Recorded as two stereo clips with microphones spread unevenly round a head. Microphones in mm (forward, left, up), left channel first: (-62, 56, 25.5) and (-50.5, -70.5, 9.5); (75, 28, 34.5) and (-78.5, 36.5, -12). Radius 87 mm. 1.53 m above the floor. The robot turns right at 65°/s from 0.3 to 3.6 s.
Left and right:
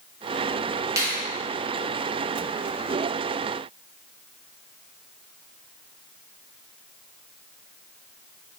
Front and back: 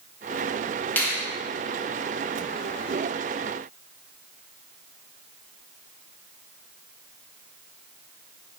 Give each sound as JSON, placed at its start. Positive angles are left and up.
{"t": 1.0, "sound": "a finger snap", "azimuth_deg": -25, "distance_m": 0.6}